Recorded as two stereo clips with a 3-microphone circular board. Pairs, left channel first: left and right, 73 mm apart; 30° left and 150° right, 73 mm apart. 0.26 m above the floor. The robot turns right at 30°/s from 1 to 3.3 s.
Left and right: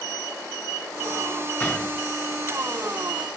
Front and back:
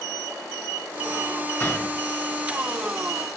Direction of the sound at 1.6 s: 60° left.